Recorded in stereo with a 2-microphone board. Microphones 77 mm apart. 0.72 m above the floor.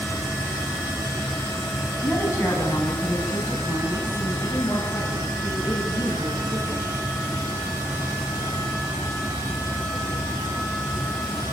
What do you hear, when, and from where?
2.0 s a woman speaking: 25° left (ahead or behind), 6.5 m; by 6.9 s 45° left (ahead or behind), 10 m